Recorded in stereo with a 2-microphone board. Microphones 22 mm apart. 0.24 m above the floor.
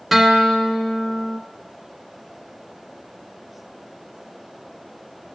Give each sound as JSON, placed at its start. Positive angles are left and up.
{"t": 0.1, "sound": "a guitar", "side_deg": -5, "distance_m": 0.8}